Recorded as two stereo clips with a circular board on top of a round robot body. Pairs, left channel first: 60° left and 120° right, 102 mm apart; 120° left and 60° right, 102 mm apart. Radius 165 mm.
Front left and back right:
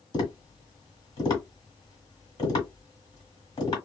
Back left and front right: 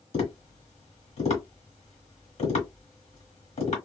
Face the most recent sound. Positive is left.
turn(degrees=110)